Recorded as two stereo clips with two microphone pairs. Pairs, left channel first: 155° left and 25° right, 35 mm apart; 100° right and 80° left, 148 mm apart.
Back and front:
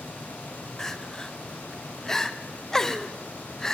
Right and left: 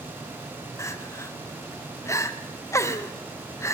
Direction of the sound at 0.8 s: 145° right.